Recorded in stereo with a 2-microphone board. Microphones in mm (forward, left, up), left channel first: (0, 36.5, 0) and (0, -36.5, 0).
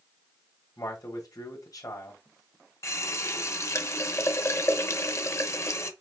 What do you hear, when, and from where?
0.8 s a man speaking: 55° left (ahead or behind), 1.4 m
2.8 s a running tap: 40° left (ahead or behind), 0.6 m